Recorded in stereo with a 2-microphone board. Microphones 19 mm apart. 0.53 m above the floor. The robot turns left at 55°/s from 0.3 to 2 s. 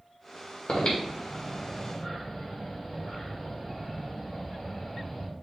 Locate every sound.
0.7 s breathing: 60° left (ahead or behind), 1.6 m; by 5.3 s 15° left (ahead or behind), 1.6 m